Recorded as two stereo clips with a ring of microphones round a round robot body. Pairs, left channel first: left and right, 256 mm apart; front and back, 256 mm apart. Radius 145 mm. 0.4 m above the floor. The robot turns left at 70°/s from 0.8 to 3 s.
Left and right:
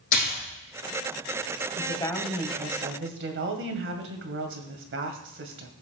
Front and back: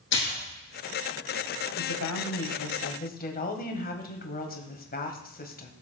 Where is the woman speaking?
35° left, 2 m; by 5.7 s 55° right, 2 m.